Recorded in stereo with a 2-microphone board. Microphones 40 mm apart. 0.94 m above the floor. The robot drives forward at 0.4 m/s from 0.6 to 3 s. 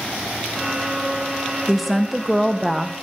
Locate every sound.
1.7 s a woman speaking: centre (ahead or behind), 1.3 m